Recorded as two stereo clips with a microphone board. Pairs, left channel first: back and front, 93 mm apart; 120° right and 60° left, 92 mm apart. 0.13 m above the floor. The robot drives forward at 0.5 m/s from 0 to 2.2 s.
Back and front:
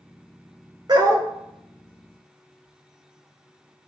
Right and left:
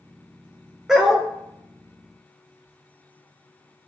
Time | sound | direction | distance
0.9 | a dog barking | 20° right | 0.7 m